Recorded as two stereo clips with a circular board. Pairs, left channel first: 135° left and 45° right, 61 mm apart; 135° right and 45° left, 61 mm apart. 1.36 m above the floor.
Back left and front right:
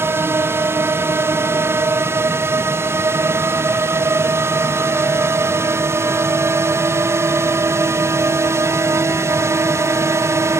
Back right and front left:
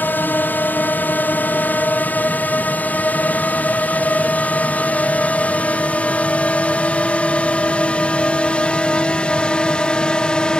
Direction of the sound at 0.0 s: 85° right.